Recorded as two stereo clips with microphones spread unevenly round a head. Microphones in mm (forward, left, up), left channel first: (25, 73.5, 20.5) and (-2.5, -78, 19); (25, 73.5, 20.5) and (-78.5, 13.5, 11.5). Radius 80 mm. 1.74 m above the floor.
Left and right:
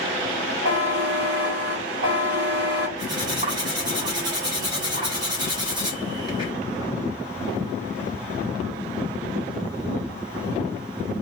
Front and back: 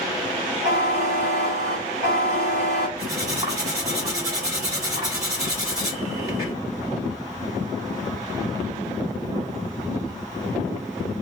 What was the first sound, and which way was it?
A buzzer, 105° right.